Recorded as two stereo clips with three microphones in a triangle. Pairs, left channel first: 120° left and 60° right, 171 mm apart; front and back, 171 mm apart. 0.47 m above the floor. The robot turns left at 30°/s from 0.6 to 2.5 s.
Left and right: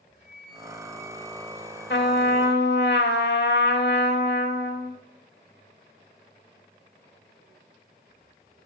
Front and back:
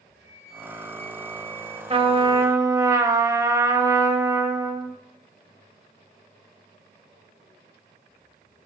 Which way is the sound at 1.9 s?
125° left.